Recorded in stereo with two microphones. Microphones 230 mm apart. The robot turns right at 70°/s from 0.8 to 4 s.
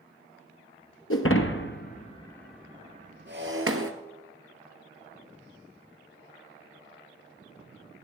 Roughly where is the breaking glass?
Left.